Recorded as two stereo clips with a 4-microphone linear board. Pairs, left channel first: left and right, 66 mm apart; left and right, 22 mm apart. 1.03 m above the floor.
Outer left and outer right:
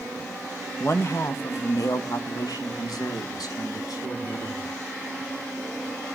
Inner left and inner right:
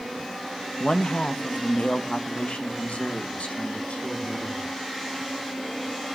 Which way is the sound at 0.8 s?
40° left (ahead or behind).